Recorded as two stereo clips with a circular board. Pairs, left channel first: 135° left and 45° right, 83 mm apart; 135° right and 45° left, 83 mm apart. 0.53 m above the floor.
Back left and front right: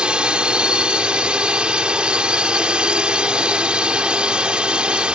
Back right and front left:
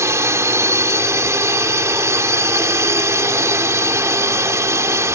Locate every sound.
0.0 s a drone: 25° left